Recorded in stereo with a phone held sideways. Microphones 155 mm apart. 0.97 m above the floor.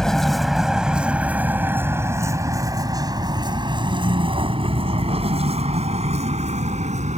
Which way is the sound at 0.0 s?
5° left (ahead or behind).